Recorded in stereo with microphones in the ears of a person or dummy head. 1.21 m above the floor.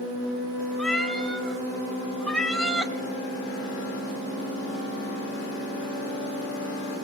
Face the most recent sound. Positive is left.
turn(degrees=5)  # may be behind; listen again after turning